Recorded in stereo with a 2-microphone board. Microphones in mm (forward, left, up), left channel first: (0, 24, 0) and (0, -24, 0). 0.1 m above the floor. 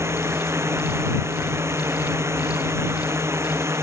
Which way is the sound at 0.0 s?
60° right (ahead or behind).